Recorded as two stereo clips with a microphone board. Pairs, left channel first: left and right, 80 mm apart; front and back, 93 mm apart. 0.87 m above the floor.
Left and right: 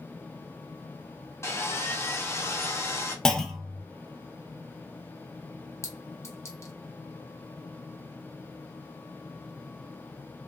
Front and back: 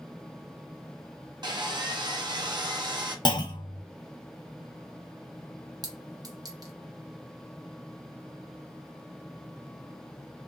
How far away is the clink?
About 0.6 m.